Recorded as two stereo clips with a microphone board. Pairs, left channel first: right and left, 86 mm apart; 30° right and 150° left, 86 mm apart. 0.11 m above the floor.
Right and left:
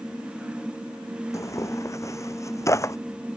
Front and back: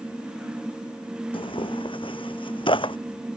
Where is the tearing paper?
35° right.